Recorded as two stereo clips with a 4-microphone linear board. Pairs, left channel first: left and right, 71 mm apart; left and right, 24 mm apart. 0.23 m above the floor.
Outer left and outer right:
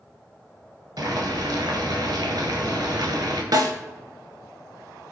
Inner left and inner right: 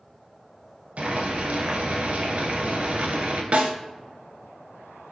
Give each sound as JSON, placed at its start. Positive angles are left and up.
{"t": 1.0, "sound": "boiling", "side_deg": -80, "distance_m": 0.8}
{"t": 3.5, "sound": "a snare drum", "side_deg": -70, "distance_m": 0.6}